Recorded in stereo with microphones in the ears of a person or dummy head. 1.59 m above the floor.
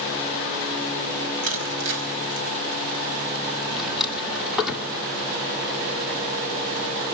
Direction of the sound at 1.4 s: 75° right (ahead or behind).